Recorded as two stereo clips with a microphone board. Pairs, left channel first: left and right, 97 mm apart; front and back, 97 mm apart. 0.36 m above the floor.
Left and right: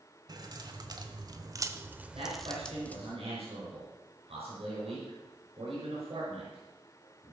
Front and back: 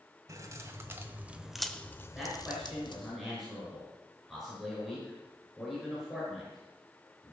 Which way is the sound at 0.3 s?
130° right.